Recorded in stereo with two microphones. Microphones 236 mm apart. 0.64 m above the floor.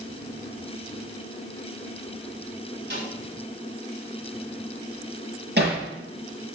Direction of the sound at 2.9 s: 50° right (ahead or behind).